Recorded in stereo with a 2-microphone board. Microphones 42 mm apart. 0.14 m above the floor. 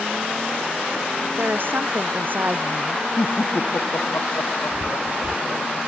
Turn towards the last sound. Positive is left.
turn(degrees=-45)  # may be behind; listen again after turning